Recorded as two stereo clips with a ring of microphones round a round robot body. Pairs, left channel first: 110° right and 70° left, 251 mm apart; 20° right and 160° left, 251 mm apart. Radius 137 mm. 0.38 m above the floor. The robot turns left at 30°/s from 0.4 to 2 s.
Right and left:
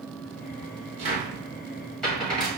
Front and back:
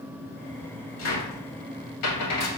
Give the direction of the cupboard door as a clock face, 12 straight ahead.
12 o'clock.